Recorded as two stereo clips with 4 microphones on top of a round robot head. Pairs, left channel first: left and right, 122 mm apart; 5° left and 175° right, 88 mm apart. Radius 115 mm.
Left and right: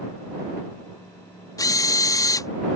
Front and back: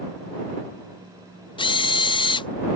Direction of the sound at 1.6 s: 30° left.